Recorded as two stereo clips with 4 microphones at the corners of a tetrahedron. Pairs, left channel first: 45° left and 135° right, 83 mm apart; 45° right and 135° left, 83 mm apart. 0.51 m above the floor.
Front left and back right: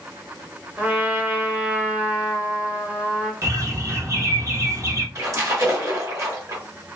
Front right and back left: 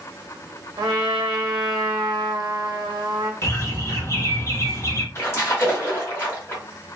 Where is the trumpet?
150° left, 0.7 m.